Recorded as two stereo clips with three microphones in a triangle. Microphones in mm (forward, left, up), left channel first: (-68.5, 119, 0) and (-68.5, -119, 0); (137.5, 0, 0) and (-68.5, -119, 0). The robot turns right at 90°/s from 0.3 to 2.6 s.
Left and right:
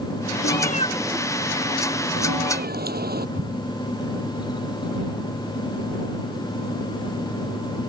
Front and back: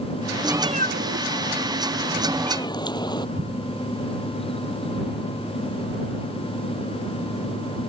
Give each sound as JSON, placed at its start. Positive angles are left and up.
{"t": 0.4, "sound": "a cat meowing", "azimuth_deg": 125}
{"t": 3.4, "sound": "an explosion", "azimuth_deg": -120}